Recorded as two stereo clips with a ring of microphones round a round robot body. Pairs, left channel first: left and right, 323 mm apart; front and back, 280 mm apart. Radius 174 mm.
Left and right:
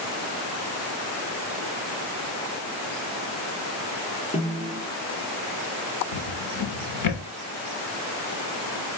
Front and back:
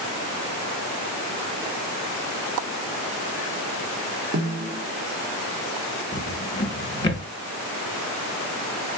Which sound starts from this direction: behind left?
A snare drum, at 4.3 s.